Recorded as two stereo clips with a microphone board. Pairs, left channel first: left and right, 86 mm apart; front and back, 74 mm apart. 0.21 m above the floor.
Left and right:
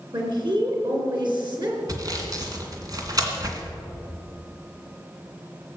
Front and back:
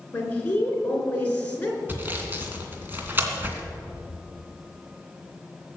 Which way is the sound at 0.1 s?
65° right.